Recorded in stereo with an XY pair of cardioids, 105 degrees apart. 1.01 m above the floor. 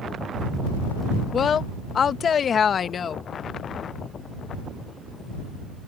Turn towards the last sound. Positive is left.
turn(degrees=50)